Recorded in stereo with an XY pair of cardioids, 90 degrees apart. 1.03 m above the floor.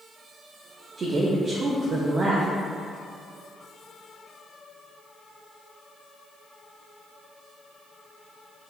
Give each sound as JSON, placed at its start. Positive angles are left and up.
{"t": 1.0, "sound": "a woman speaking", "azimuth_deg": -50, "distance_m": 0.6}